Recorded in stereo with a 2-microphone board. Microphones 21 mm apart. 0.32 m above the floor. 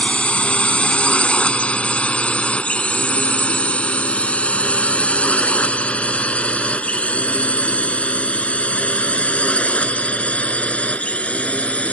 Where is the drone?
60° left (ahead or behind); by 11.9 s 70° left (ahead or behind).